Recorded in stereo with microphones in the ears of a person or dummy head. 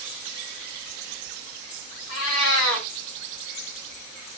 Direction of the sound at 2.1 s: 80° left.